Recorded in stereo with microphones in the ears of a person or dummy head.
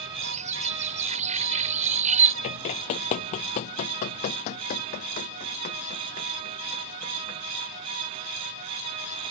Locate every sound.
0.2 s a bird: 40° right (ahead or behind)
2.4 s running footsteps: 35° left (ahead or behind); by 7.4 s 45° left (ahead or behind)